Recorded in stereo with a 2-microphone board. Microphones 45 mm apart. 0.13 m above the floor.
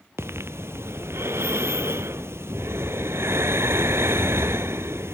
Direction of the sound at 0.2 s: 75° right (ahead or behind).